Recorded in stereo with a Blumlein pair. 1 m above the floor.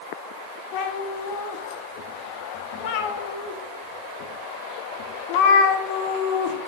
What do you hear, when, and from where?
0.7 s a cat meowing: 45° left, 0.8 m